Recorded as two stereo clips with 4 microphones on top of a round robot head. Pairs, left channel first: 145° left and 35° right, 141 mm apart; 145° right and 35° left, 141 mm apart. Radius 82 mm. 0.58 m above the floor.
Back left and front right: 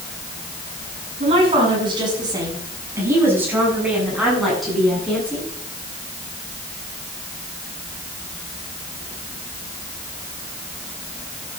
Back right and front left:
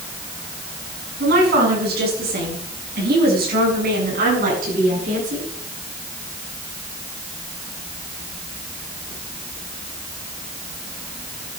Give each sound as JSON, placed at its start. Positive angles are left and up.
{"t": 1.2, "sound": "a woman speaking", "azimuth_deg": 20, "distance_m": 7.0}